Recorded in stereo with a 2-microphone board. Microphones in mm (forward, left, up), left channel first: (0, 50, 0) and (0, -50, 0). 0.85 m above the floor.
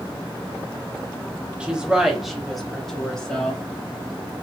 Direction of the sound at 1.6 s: 10° right (ahead or behind).